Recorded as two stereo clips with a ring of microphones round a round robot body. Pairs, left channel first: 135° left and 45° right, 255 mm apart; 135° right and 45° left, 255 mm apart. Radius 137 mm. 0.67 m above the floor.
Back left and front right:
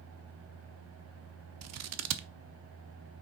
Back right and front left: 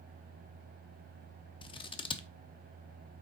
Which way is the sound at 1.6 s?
65° right.